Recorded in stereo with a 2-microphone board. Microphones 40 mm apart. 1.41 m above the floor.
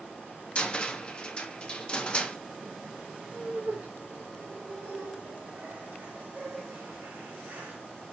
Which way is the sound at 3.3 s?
55° right (ahead or behind).